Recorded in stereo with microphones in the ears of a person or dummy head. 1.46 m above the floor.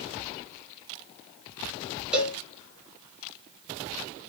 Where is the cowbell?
10° right (ahead or behind), 0.5 m.